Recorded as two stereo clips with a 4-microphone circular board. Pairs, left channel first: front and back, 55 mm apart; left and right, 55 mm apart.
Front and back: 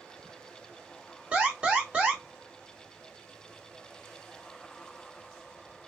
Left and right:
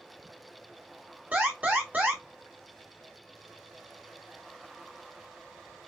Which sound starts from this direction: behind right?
An alarm, at 1.3 s.